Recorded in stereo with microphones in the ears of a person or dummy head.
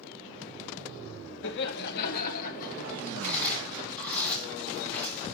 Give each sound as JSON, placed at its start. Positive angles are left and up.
{"t": 1.4, "sound": "laughter", "side_deg": 65, "distance_m": 1.8}
{"t": 3.2, "sound": "chewing", "side_deg": 10, "distance_m": 5.0}